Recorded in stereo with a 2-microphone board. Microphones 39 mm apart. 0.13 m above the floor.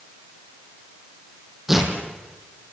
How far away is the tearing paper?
About 4 m.